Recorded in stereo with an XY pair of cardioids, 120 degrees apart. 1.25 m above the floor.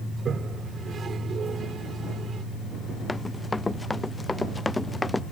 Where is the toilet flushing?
35° right.